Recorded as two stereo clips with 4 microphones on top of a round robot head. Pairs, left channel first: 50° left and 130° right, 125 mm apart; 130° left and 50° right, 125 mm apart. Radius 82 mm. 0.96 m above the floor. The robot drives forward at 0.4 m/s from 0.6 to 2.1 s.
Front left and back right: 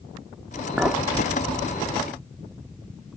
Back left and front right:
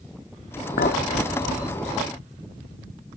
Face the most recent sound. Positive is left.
turn(degrees=160)